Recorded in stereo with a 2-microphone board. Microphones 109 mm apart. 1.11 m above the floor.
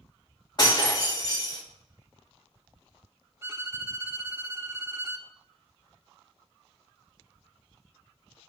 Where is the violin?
20° right (ahead or behind), 0.7 m.